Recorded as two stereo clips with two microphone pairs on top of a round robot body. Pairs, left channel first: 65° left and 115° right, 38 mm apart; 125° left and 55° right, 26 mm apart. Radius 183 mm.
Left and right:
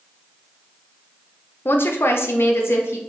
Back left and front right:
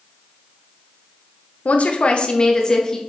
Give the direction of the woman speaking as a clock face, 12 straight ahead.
9 o'clock.